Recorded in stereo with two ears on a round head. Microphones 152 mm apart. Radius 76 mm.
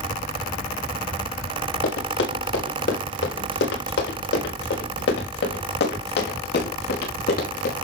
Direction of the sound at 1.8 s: 85° left.